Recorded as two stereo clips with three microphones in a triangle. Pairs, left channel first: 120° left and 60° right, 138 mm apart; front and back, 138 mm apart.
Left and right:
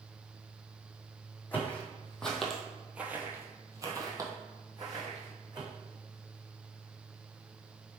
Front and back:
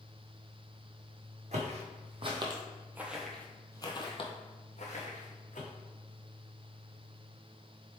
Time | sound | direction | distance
1.5 | footsteps | 160° right | 1.3 m